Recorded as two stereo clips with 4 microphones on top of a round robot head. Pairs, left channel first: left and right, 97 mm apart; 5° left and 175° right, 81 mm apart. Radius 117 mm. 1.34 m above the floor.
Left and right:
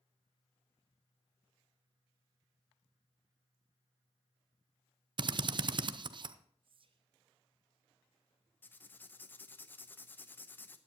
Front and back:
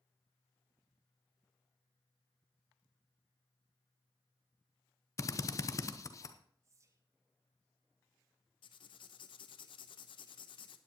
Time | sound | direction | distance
5.2 | a drill | 50° right | 0.8 m
6.6 | whispering | 120° right | 1.3 m
8.6 | writing | 20° left | 0.9 m